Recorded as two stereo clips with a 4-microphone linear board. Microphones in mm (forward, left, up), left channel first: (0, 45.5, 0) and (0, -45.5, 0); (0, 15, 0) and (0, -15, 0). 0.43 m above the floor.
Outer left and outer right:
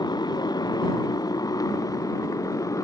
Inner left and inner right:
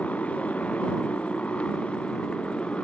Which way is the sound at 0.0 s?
45° left (ahead or behind).